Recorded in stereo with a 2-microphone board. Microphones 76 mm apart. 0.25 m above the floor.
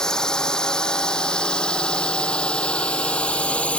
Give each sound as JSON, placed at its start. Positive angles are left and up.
{"t": 0.0, "sound": "a drone", "side_deg": 10}